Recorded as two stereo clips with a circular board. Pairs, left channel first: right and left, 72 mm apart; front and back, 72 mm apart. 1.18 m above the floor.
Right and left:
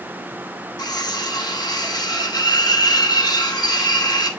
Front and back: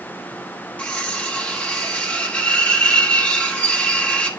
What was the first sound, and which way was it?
Cutlery clinking, 75° right.